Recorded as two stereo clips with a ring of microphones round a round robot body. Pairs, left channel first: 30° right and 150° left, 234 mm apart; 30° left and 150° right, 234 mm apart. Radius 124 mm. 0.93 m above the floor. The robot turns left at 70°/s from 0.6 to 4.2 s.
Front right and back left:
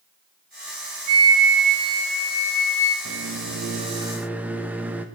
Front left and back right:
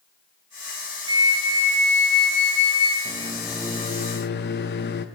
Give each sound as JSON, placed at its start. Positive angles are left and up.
{"t": 1.1, "sound": "a flute", "azimuth_deg": 135, "distance_m": 1.5}
{"t": 3.0, "sound": "a microwave", "azimuth_deg": 150, "distance_m": 0.8}